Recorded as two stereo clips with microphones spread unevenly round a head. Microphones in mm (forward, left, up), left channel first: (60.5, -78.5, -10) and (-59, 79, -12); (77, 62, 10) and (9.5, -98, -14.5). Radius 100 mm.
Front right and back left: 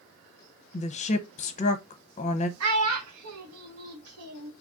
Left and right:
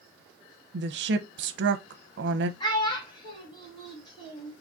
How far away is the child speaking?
About 1.3 m.